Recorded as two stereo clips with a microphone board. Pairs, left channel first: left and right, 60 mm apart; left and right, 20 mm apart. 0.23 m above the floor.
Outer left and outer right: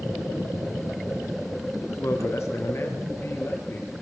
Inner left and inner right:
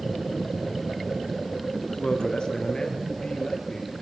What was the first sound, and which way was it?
A man speaking, 55° left (ahead or behind).